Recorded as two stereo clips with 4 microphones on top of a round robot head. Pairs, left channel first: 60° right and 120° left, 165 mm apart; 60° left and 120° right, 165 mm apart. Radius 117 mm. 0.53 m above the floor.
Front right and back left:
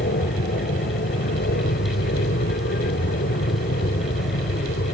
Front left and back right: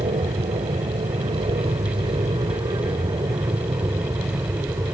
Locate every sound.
0.0 s an aircraft: 70° right; by 4.9 s 50° right